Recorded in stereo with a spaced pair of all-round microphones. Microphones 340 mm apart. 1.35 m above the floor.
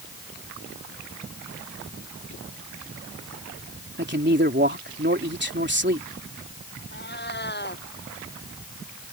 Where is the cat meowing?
30° left (ahead or behind).